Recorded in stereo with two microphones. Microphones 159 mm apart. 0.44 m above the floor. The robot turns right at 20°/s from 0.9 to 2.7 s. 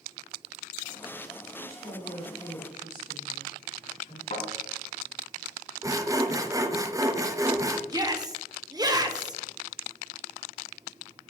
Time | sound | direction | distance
1.6 | a woman speaking | 70° left (ahead or behind) | 3.5 m
4.3 | a thud | 55° left (ahead or behind) | 3.5 m
5.8 | sawing | 20° right (ahead or behind) | 0.5 m
7.9 | a shout | 25° right (ahead or behind) | 0.9 m